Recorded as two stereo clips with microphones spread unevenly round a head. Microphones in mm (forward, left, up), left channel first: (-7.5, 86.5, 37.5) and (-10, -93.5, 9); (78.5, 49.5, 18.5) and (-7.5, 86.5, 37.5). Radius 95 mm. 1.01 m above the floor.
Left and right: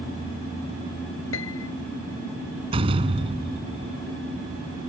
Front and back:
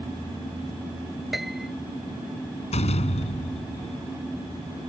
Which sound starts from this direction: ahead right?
A door slam, at 2.7 s.